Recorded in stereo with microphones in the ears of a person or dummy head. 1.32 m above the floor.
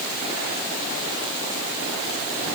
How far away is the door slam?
No door slam in this recording.